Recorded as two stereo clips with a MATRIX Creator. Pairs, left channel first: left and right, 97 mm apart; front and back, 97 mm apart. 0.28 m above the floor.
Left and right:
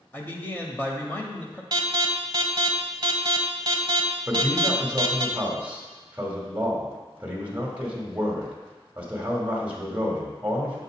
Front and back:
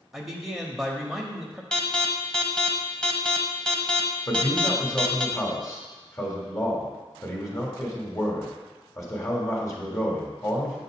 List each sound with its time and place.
0.1 s a man speaking: 95° left, 0.9 m
1.7 s an alarm: 80° right, 0.8 m
4.3 s a man speaking: 25° right, 1.4 m